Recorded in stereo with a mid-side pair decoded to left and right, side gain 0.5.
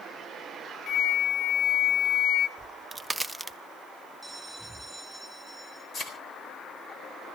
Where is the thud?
45° left, 3.5 m.